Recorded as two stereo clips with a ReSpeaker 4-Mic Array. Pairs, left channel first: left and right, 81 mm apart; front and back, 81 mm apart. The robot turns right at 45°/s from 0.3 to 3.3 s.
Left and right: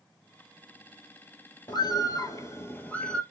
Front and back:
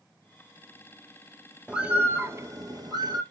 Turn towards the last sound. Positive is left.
turn(degrees=175)